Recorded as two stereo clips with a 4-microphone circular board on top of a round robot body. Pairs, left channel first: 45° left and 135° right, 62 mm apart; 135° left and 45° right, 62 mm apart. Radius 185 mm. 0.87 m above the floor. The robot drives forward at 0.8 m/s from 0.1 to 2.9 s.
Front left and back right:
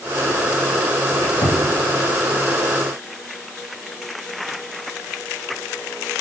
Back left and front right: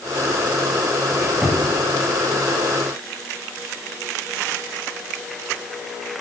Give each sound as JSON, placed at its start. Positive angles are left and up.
{"t": 1.1, "sound": "a squeak", "azimuth_deg": 30, "distance_m": 2.0}